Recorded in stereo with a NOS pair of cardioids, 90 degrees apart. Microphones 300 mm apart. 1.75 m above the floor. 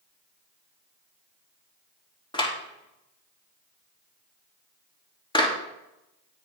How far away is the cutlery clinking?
No cutlery clinking in this recording.